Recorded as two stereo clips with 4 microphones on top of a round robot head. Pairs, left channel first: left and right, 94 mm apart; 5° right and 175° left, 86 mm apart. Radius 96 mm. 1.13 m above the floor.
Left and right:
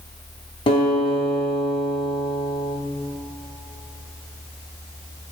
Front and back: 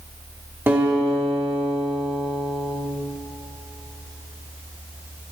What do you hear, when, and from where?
0.7 s a guitar: 110° left, 2.5 m